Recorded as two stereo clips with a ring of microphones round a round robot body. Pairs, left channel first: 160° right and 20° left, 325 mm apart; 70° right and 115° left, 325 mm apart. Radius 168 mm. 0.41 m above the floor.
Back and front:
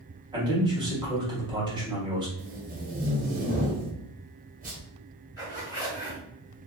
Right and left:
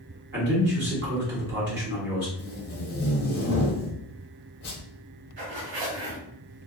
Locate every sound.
0.3 s a man speaking: 90° left, 1.4 m
2.4 s tape being pulled: 30° right, 1.0 m
5.4 s a zipper: 125° left, 1.5 m